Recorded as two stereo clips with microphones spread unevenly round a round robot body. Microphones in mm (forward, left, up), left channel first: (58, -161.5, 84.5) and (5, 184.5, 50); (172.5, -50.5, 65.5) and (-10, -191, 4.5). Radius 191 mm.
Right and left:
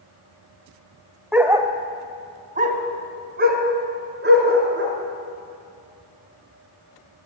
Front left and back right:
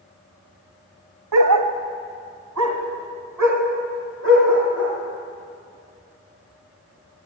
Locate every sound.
1.3 s a dog barking: 170° right, 1.3 m; by 4.9 s 160° left, 5 m